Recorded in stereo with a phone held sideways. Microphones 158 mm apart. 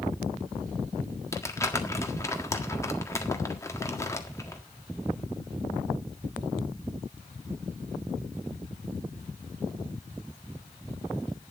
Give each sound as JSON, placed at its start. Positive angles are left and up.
{"t": 1.3, "sound": "crumpling", "side_deg": 20, "distance_m": 1.7}